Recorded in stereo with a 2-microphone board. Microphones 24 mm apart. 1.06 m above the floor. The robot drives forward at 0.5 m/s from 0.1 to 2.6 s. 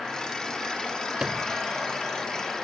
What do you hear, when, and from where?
1.2 s a sliding door: 35° right (ahead or behind)